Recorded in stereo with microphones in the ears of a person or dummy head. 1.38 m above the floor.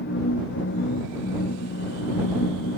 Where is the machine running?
60° left (ahead or behind).